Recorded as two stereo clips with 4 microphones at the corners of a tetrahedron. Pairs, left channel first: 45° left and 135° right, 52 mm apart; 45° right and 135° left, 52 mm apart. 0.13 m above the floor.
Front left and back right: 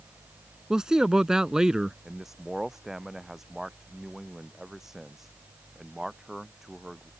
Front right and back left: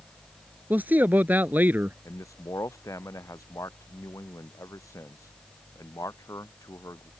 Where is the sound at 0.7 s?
155° left.